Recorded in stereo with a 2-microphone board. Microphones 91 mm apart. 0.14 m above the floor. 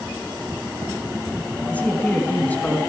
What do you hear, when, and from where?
1.7 s a man speaking: 15° left (ahead or behind), 1.1 m